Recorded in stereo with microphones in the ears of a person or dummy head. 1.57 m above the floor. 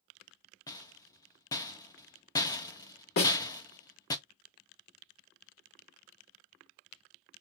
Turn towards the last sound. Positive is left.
turn(degrees=60)  # may be behind; listen again after turning